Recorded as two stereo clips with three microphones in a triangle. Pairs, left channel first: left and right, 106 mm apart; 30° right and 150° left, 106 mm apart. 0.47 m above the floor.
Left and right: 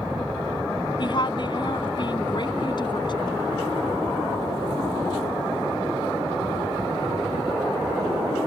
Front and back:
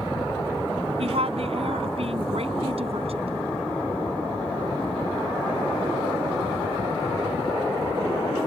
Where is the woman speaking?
135° left.